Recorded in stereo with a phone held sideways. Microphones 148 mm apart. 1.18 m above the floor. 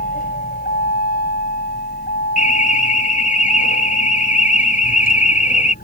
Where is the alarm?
60° left (ahead or behind).